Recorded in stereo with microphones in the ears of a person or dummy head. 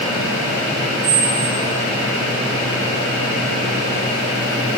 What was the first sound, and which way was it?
A squeak, 70° right (ahead or behind).